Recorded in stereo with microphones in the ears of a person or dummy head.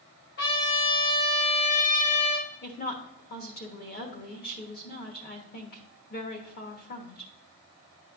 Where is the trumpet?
55° left (ahead or behind), 2 m.